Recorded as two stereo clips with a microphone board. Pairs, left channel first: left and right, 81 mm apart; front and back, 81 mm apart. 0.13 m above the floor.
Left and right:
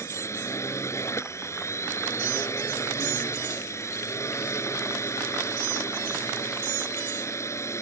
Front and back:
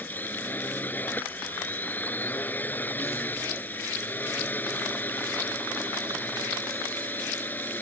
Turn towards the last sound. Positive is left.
turn(degrees=60)